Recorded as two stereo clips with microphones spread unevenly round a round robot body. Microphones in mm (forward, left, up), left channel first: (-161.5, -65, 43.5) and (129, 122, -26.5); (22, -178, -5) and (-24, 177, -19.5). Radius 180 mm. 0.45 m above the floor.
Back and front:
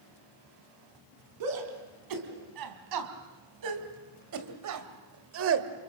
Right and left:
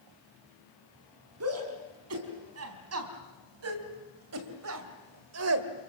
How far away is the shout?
About 4.5 m.